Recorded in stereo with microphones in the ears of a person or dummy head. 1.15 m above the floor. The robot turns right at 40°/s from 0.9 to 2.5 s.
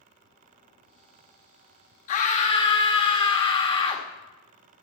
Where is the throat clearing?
I don't hear throat clearing.